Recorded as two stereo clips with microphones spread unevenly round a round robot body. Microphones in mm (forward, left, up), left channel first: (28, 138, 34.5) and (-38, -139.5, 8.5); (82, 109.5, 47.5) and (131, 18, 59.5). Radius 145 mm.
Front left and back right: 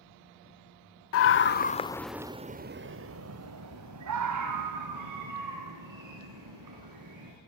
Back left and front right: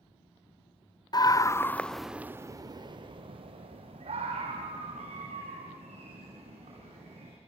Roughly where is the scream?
Left.